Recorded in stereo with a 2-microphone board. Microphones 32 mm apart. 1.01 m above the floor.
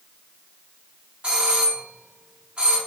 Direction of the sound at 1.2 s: 35° right (ahead or behind).